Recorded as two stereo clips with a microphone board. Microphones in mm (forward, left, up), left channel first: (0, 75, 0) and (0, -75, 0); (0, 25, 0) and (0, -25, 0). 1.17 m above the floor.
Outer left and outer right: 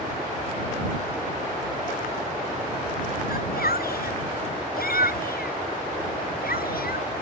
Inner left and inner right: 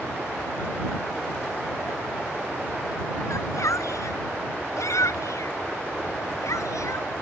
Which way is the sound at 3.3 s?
90° left.